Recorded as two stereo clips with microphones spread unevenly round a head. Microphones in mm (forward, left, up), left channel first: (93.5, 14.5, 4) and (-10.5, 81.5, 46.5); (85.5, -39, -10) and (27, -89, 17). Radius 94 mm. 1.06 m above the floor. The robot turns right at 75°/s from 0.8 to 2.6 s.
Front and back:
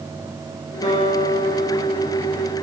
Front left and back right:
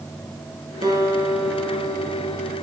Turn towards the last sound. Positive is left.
turn(degrees=30)